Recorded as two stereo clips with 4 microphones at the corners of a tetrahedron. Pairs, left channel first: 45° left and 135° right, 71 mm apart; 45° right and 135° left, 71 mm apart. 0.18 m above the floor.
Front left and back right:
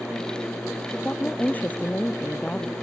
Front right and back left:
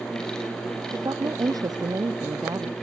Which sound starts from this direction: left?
A woman speaking, at 0.9 s.